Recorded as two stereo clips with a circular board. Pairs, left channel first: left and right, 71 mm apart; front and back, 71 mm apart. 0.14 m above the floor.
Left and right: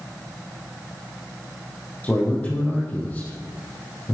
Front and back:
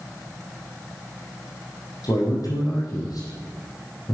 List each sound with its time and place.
2.0 s a man speaking: 25° left, 5.5 m